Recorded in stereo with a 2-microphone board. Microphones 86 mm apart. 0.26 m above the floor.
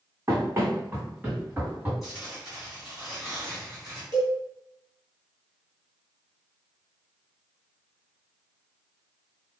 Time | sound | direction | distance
0.3 | running footsteps | 35° right (ahead or behind) | 0.9 m
2.0 | tearing paper | 5° right (ahead or behind) | 1.8 m
4.1 | a cowbell | 60° right (ahead or behind) | 1.2 m